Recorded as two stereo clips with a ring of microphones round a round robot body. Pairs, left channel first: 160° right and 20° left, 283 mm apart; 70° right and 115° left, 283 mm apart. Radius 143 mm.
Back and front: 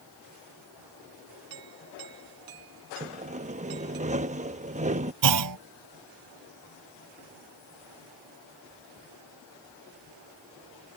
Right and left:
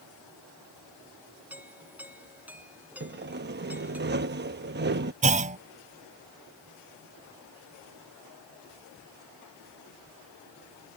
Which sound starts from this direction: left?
Sawing, at 3.0 s.